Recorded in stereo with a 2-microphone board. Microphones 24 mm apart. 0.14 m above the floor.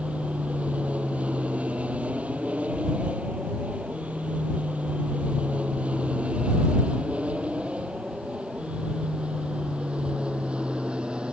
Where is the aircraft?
65° right (ahead or behind); by 11.3 s 45° right (ahead or behind).